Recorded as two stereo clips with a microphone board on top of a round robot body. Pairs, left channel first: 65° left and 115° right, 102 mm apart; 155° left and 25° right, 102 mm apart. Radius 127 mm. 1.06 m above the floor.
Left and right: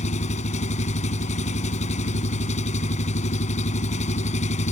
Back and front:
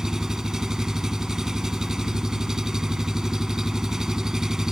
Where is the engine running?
65° left.